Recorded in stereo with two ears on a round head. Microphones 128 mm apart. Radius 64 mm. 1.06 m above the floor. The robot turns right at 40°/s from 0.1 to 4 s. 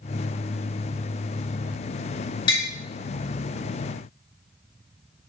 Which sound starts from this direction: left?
Tapping, at 2.5 s.